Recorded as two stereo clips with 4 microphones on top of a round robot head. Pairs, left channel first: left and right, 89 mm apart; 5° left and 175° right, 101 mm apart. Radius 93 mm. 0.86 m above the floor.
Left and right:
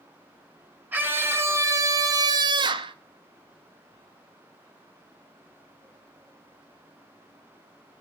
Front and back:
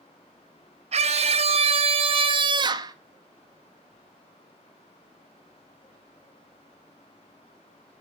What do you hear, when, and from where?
0.9 s a scream: 160° right, 1.8 m; by 3.0 s 115° right, 1.2 m